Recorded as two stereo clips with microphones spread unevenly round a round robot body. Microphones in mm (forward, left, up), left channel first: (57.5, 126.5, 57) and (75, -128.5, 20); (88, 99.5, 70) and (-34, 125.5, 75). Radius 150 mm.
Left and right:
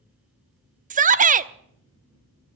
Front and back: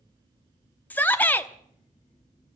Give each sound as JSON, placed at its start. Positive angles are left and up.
{"t": 0.9, "sound": "a shout", "azimuth_deg": -80, "distance_m": 0.9}